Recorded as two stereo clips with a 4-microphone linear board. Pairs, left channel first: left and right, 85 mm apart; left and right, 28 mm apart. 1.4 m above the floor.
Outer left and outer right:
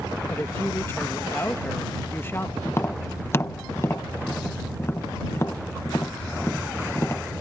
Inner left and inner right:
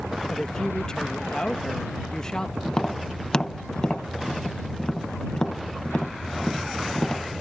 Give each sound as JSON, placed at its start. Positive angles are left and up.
{"t": 0.3, "sound": "a woman speaking", "side_deg": 25}
{"t": 2.6, "sound": "tapping", "side_deg": 30}